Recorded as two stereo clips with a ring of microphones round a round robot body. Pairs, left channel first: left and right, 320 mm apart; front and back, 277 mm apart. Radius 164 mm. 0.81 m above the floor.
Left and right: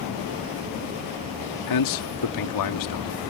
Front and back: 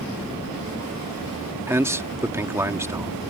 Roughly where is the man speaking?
Left.